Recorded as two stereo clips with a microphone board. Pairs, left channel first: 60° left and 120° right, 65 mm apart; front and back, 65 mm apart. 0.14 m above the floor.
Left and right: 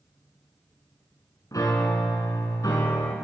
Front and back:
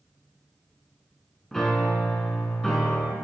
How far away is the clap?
No clap in this recording.